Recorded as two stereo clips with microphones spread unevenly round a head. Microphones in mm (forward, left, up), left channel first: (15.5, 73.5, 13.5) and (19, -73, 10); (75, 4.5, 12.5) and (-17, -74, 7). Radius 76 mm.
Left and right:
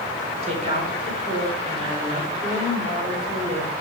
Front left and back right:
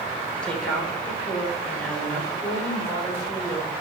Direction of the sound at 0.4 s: 40° right.